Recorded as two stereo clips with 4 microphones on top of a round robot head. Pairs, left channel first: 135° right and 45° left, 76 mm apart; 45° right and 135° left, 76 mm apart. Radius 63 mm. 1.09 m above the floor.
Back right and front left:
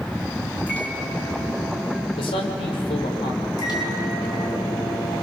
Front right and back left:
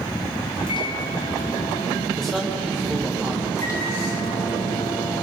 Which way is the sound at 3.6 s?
95° right.